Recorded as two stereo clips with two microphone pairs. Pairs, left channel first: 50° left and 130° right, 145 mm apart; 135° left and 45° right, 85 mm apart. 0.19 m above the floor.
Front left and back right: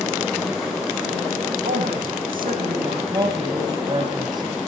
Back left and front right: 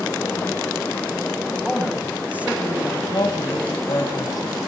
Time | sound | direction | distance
1.6 | a woman speaking | 120° right | 10 m
3.1 | a woman speaking | 170° left | 3.5 m